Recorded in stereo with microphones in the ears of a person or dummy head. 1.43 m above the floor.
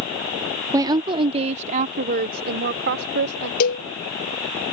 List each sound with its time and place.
0.7 s a woman speaking: 15° right (ahead or behind); by 3.5 s 60° right (ahead or behind)
3.6 s a cowbell: 55° left (ahead or behind)